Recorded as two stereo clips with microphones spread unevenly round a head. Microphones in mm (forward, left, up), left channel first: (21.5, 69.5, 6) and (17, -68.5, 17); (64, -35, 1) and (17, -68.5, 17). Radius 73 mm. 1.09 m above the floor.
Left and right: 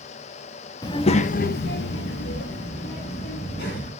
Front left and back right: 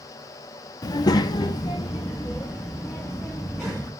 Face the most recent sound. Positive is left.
turn(degrees=120)